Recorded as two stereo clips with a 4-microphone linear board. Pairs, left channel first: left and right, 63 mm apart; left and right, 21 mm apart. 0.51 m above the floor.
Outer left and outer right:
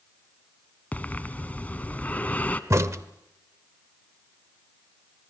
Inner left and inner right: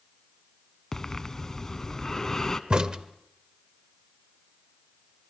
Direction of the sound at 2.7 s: 50° right (ahead or behind).